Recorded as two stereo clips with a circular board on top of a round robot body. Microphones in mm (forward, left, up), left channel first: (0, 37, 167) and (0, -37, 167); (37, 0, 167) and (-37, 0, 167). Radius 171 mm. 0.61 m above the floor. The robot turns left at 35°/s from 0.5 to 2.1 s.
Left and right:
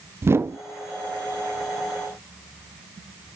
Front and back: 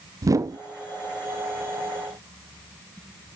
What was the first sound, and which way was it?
A whoosh, 145° right.